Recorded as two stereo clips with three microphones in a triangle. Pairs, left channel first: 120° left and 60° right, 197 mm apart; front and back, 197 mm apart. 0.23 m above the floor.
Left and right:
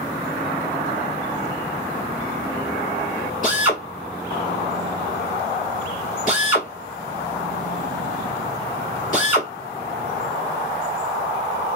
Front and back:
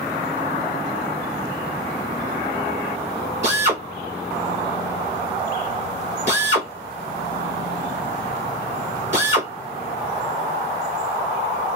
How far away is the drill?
About 2 m.